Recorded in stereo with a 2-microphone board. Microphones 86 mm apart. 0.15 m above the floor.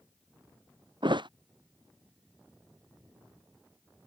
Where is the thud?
60° right (ahead or behind).